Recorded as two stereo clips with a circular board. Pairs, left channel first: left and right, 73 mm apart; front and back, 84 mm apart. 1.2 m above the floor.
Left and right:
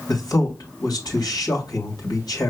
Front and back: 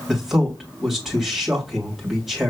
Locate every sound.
0.1 s a man speaking: 95° left, 2 m